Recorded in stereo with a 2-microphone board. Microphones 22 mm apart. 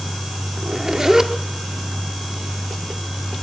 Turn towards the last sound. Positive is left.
turn(degrees=-25)  # may be behind; listen again after turning